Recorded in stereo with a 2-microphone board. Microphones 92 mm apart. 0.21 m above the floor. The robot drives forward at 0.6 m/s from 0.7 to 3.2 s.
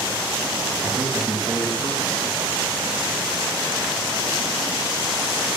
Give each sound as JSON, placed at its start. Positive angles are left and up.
{"t": 0.8, "sound": "a man speaking", "side_deg": -35, "distance_m": 1.9}